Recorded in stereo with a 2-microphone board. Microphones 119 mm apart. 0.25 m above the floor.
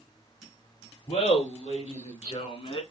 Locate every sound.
1.1 s laughter: 70° left (ahead or behind), 4 m; by 2.8 s 50° left (ahead or behind), 2 m